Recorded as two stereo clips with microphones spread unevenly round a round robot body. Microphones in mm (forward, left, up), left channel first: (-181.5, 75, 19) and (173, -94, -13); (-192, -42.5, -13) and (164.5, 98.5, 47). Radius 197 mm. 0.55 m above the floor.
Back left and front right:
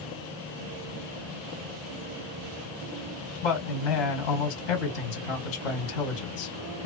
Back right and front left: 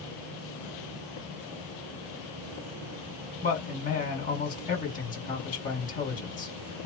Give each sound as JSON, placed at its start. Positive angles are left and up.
{"t": 3.4, "sound": "a man speaking", "azimuth_deg": 140, "distance_m": 1.7}